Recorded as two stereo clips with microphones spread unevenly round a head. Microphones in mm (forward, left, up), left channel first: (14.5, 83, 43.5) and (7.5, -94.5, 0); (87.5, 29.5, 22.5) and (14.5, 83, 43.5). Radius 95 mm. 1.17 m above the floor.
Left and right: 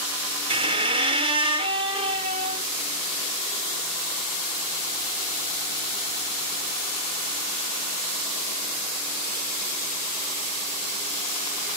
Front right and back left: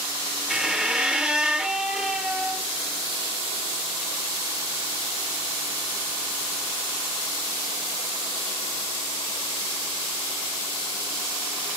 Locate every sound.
0.5 s a squeak: 155° right, 0.9 m